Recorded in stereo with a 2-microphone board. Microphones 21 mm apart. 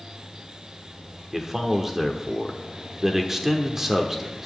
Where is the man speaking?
30° right (ahead or behind), 0.9 m.